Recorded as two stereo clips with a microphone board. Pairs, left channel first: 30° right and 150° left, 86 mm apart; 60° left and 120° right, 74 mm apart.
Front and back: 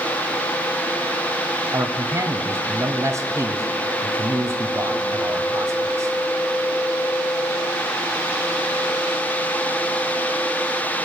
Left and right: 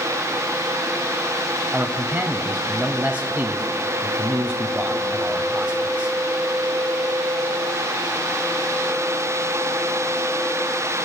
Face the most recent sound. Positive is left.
turn(degrees=175)